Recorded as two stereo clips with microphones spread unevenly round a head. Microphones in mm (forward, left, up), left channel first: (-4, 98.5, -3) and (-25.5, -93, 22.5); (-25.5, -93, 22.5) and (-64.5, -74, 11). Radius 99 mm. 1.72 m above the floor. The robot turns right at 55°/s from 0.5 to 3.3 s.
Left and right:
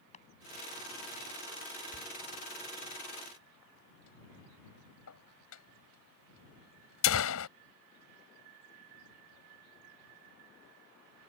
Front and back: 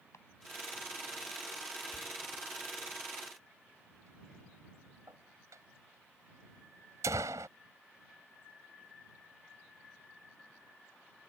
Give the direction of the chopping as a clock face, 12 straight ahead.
11 o'clock.